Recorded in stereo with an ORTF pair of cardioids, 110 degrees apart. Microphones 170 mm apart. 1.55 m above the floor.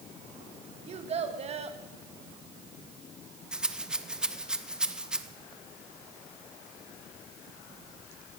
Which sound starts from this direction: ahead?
A rattle, at 3.5 s.